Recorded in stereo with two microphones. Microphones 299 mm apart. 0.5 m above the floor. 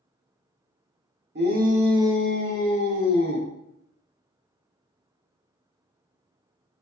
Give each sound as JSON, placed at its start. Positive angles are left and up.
{"t": 1.4, "sound": "a shout", "side_deg": -35, "distance_m": 0.9}